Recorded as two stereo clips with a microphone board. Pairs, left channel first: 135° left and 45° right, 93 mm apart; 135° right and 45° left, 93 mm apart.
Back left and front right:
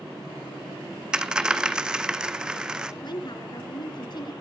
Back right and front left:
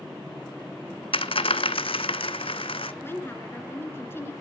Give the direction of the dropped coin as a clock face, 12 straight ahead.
4 o'clock.